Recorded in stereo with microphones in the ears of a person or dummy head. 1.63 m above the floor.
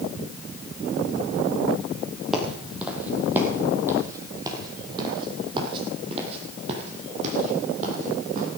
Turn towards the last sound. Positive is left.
turn(degrees=-50)  # may be behind; listen again after turning